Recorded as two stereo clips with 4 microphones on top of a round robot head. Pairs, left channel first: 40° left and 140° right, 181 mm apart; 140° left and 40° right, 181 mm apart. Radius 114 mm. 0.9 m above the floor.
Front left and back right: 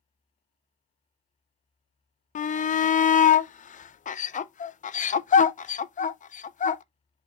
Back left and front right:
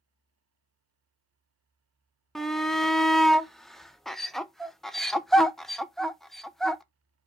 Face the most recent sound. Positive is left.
turn(degrees=55)